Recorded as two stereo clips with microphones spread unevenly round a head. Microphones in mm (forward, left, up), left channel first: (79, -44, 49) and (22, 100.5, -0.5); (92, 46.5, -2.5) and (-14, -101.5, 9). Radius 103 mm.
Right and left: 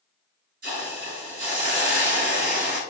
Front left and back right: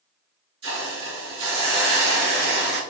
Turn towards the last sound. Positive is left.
turn(degrees=165)